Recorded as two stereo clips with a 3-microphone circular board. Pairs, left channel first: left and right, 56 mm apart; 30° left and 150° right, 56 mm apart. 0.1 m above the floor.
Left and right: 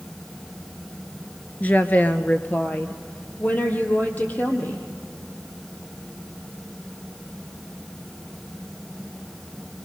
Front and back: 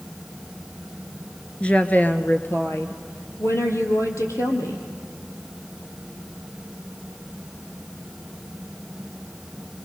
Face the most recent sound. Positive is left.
turn(degrees=35)